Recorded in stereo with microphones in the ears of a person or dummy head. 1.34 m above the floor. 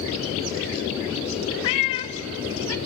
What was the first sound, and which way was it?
A cat meowing, 25° left (ahead or behind).